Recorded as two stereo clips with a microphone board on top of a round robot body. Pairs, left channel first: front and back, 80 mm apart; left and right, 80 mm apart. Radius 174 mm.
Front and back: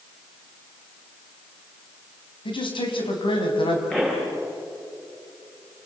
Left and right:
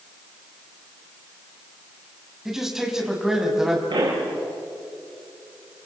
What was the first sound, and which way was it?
A man speaking, 5° right.